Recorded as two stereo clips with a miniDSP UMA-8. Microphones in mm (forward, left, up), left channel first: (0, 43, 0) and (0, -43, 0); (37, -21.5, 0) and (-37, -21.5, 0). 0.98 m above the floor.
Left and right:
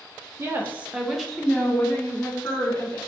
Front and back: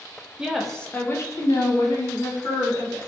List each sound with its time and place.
0.4 s a woman speaking: 115° right, 0.5 m; by 3.0 s 25° left, 1.5 m